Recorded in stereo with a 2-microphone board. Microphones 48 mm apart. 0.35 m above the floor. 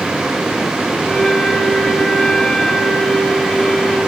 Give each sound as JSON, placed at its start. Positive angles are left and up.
{"t": 1.0, "sound": "a flute", "side_deg": 10, "distance_m": 1.3}